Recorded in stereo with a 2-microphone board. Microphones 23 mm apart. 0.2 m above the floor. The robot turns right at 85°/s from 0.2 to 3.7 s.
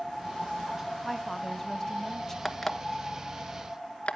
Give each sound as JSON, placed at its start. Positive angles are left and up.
{"t": 1.0, "sound": "a woman speaking", "side_deg": 10, "distance_m": 1.3}
{"t": 2.5, "sound": "an alarm clock", "side_deg": -5, "distance_m": 1.2}